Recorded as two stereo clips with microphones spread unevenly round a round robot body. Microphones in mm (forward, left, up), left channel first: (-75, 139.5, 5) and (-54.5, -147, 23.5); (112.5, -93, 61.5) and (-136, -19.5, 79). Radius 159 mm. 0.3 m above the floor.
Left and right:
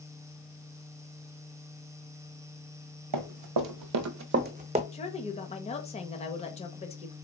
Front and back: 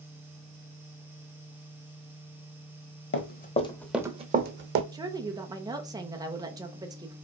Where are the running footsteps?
65° right, 0.9 m; by 4.8 s 155° right, 1.0 m.